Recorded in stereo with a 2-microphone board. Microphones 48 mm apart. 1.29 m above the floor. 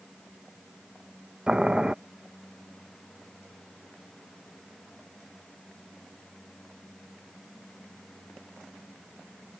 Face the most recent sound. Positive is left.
turn(degrees=-20)  # may be behind; listen again after turning